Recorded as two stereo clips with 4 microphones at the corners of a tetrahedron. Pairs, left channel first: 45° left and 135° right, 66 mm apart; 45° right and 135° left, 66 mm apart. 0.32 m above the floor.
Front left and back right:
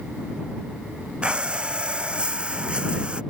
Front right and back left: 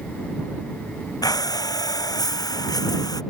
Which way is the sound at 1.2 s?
60° right.